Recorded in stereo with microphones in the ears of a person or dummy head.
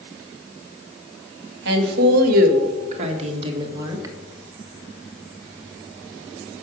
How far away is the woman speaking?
About 2.0 m.